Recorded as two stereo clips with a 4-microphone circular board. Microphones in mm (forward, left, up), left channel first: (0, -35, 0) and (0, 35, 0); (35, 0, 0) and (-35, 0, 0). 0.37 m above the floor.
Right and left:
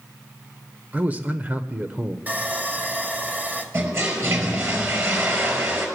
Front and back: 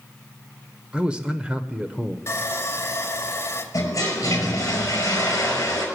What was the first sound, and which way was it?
A man speaking, 120° left.